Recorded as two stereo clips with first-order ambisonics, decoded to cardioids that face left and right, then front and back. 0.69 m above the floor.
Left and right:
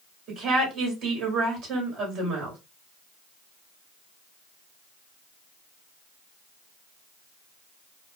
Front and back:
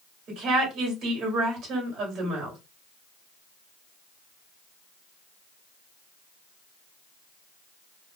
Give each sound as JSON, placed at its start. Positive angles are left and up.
{"t": 0.3, "sound": "a woman speaking", "azimuth_deg": -135, "distance_m": 2.0}